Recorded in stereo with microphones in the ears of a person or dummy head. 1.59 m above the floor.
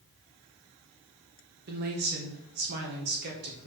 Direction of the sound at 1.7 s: 55° right (ahead or behind).